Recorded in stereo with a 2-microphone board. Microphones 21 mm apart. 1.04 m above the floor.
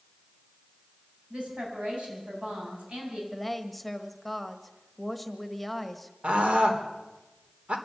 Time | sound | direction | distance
1.3 | a woman speaking | 65° right (ahead or behind) | 9 m
3.3 | a woman speaking | 5° left (ahead or behind) | 1.6 m
6.2 | a scream | 75° right (ahead or behind) | 3.5 m